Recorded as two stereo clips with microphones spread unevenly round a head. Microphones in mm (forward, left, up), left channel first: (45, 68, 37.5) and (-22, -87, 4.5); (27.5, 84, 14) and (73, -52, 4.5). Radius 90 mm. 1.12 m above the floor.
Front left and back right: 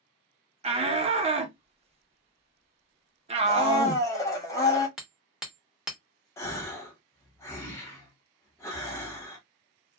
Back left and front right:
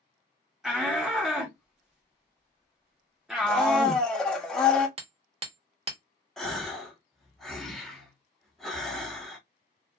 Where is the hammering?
25° right, 0.9 m.